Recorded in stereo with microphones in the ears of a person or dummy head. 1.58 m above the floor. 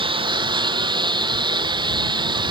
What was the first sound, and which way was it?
A lawn mower, 25° right (ahead or behind).